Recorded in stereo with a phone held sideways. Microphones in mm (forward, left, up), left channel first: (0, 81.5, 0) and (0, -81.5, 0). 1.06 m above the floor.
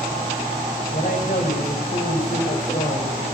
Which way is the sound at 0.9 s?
60° left (ahead or behind).